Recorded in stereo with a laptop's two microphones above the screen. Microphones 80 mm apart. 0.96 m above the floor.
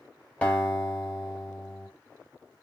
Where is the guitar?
10° left (ahead or behind), 1.6 m.